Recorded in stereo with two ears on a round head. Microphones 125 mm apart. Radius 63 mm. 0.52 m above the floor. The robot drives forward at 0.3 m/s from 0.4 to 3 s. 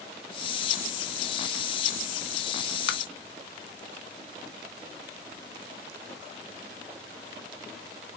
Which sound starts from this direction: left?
Tapping, at 2.9 s.